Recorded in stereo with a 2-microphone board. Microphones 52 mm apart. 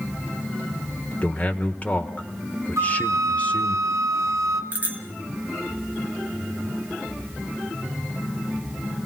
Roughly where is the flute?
Right.